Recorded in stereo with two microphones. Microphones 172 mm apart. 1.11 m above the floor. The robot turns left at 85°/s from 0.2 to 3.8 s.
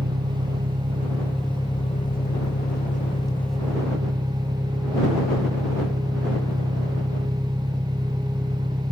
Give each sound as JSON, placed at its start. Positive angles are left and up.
{"t": 0.0, "sound": "an engine running", "azimuth_deg": -75}